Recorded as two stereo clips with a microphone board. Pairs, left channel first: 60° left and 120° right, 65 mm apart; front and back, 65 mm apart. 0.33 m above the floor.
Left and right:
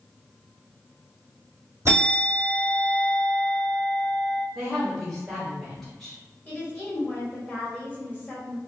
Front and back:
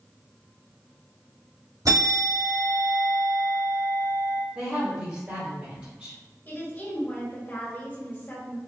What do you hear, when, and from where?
1.9 s a bell: 165° right, 1.8 m
4.5 s a woman speaking: 150° left, 1.4 m
6.5 s a woman speaking: 15° left, 1.6 m